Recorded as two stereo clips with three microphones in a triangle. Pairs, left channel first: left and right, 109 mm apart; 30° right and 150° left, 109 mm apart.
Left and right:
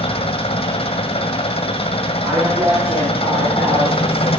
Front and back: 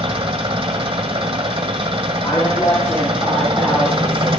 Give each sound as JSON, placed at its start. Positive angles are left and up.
{"t": 0.0, "sound": "an engine running", "azimuth_deg": 120, "distance_m": 1.7}
{"t": 2.2, "sound": "a woman speaking", "azimuth_deg": -95, "distance_m": 6.5}